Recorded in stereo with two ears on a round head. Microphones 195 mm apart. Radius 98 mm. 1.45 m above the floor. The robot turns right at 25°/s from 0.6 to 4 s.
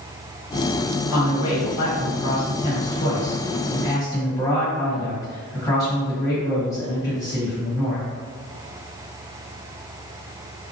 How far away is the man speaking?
About 1.4 m.